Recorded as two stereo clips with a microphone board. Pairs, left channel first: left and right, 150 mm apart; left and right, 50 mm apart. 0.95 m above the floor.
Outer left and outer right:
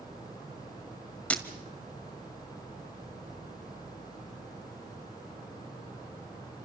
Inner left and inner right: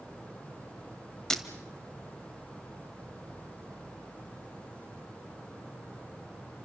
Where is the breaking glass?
10° left (ahead or behind), 1.8 m.